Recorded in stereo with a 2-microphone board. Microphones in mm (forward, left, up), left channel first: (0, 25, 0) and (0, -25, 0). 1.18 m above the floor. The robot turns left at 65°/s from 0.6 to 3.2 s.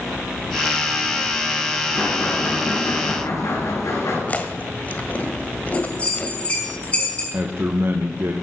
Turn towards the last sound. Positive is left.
turn(degrees=-45)  # may be behind; listen again after turning